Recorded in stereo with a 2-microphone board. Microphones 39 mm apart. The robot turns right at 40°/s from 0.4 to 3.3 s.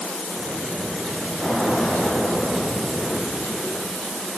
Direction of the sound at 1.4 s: 15° right.